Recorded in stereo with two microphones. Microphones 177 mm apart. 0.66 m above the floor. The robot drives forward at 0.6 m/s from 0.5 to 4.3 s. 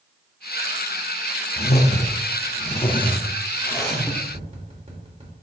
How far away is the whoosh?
About 0.7 m.